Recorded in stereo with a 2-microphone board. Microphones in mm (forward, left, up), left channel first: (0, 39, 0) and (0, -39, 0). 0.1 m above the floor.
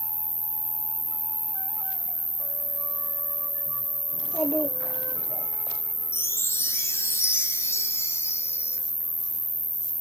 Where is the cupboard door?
I don't hear a cupboard door.